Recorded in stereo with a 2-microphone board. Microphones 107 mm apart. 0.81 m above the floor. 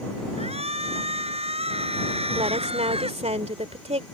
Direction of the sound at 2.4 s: 75° right (ahead or behind).